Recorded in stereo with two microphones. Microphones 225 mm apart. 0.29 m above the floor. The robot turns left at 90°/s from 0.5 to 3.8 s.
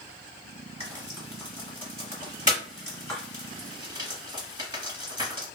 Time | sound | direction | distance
0.8 | frying | 25° right (ahead or behind) | 1.7 m